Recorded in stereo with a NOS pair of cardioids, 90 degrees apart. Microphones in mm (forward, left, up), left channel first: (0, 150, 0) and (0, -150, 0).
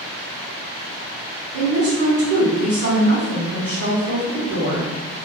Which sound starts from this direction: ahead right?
A woman speaking, at 1.5 s.